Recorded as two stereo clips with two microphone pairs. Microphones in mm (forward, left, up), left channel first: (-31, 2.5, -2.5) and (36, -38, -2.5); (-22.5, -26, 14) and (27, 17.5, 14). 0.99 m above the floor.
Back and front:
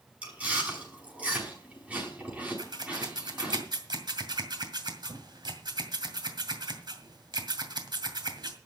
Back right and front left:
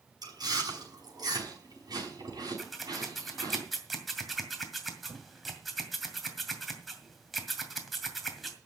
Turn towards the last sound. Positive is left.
turn(degrees=-50)